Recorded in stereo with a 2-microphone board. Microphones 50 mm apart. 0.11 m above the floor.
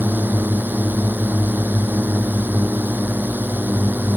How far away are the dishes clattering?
No dishes clattering in this recording.